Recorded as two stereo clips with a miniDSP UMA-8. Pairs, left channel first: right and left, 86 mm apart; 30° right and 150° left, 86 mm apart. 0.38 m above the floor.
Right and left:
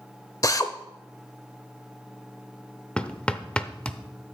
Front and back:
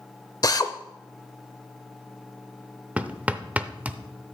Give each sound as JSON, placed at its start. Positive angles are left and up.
{"t": 0.4, "sound": "a drill", "azimuth_deg": -55, "distance_m": 0.7}
{"t": 3.0, "sound": "hammering", "azimuth_deg": -155, "distance_m": 0.6}